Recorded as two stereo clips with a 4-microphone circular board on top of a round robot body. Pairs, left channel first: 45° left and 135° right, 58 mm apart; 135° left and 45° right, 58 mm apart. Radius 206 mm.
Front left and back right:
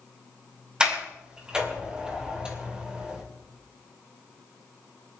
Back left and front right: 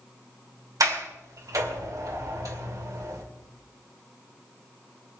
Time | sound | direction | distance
0.8 | a sliding door | 60° right | 3 m